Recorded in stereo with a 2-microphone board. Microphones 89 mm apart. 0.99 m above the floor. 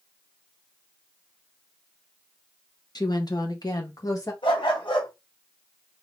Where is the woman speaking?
50° left (ahead or behind), 1.1 m; by 4.3 s 40° left (ahead or behind), 2.5 m.